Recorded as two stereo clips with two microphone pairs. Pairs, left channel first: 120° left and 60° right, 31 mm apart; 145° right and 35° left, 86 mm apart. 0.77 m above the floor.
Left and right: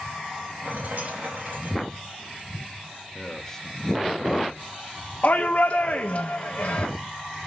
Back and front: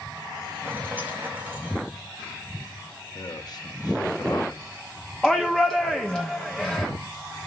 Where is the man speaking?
170° right, 1.1 m.